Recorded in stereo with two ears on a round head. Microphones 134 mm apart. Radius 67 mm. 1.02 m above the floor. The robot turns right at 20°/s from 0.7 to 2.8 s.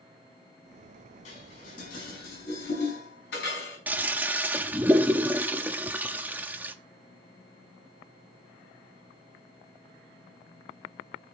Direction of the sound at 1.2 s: 50° left (ahead or behind).